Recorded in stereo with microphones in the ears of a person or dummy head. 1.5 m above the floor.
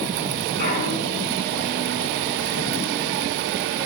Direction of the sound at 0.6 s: 60° left (ahead or behind).